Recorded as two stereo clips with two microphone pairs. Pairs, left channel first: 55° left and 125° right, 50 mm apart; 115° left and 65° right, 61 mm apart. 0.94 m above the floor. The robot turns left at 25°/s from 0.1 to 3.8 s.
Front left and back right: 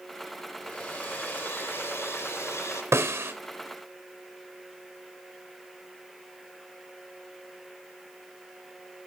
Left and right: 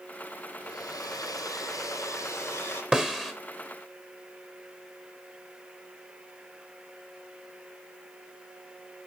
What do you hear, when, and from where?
0.6 s a hair dryer: 110° left, 4.5 m; by 2.8 s 55° left, 4.5 m
2.9 s a snare drum: 140° right, 2 m; by 3.3 s 150° right, 2 m